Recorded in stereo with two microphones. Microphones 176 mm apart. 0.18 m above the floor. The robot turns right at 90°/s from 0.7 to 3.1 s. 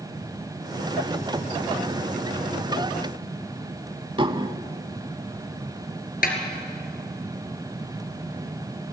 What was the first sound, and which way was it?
Dishes clattering, 30° right (ahead or behind).